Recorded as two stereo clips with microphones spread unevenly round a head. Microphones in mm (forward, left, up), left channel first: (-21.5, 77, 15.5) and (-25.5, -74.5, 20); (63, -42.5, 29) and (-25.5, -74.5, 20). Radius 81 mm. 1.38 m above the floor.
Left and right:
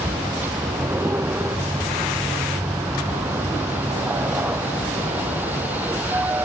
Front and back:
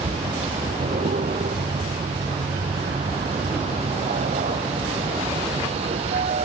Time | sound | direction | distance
0.0 | a vehicle | 170° right | ?